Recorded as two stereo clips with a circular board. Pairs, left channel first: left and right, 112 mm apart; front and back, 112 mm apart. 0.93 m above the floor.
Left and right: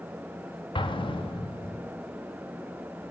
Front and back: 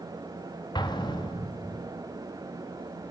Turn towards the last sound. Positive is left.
turn(degrees=50)